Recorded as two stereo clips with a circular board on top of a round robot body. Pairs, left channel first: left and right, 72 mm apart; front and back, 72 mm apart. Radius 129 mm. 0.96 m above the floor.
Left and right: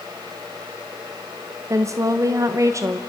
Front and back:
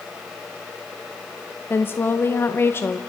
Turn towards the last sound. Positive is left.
turn(degrees=-55)